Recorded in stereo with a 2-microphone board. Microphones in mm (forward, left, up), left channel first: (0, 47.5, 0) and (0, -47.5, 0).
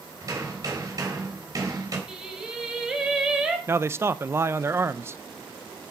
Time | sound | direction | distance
0.2 | hammering | 40° right (ahead or behind) | 3.5 m
2.1 | singing | 10° right (ahead or behind) | 2.5 m
3.7 | a man speaking | 25° right (ahead or behind) | 0.5 m